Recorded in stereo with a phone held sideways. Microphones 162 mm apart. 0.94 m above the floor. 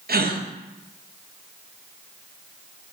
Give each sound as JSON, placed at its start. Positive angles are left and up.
{"t": 0.1, "sound": "a gasp", "side_deg": -70, "distance_m": 0.5}